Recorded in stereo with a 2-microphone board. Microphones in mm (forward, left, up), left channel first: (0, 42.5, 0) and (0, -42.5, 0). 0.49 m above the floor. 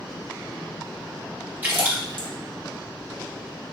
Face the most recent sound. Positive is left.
turn(degrees=-20)  # may be behind; listen again after turning